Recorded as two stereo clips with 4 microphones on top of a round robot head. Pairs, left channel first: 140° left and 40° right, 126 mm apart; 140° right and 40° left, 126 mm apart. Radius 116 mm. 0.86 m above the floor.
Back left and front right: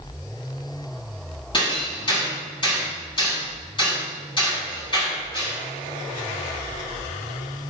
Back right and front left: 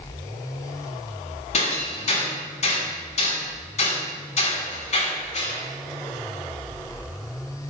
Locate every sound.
1.5 s hammering: 170° right, 8.5 m